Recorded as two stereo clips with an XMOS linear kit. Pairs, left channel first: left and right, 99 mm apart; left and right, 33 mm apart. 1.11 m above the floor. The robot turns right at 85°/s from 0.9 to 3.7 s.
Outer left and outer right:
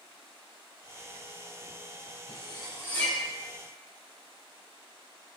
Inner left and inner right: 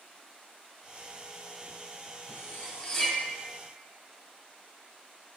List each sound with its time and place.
2.3 s cutlery clinking: 75° left (ahead or behind), 3.5 m; by 3.2 s 5° right (ahead or behind), 3.5 m